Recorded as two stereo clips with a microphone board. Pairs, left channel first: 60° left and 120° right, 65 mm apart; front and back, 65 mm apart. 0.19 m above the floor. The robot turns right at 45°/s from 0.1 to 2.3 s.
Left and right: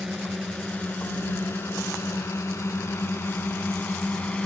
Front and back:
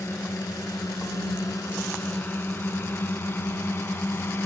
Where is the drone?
35° right; by 4.5 s 5° right.